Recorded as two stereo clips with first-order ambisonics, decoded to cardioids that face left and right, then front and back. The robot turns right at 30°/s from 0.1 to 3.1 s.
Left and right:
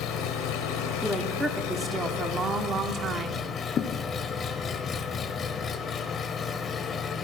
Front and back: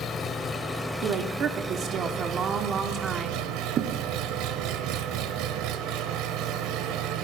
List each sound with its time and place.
0.0 s an engine running: 60° left, 0.8 m; by 7.2 s 150° left, 0.8 m
1.0 s a woman speaking: 175° left, 0.8 m; by 3.5 s 120° right, 0.8 m
3.8 s a thud: 135° left, 0.7 m